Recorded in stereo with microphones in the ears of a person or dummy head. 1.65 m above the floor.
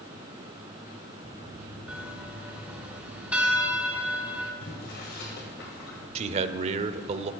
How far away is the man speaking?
About 0.6 m.